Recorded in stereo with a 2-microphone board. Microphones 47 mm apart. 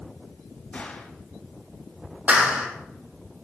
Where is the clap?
35° right (ahead or behind), 4 m.